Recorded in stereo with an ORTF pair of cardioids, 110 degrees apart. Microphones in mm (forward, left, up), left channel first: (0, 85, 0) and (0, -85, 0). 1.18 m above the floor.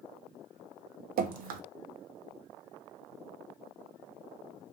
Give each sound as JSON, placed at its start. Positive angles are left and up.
{"t": 1.2, "sound": "dripping", "azimuth_deg": -60, "distance_m": 0.5}